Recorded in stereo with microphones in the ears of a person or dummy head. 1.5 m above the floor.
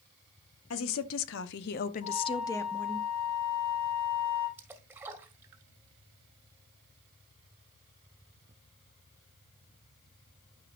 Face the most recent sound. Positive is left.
turn(degrees=-20)  # may be behind; listen again after turning